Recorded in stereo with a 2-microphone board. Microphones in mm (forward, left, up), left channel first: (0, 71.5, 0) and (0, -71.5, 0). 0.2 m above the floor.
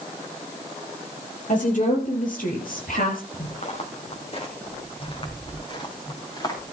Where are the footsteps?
50° left (ahead or behind), 3.5 m; by 6.6 s 30° left (ahead or behind), 4.5 m.